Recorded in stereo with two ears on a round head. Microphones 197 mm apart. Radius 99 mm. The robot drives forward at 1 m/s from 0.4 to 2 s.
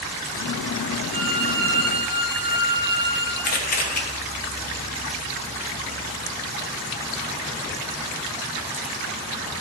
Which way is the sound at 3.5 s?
40° left (ahead or behind).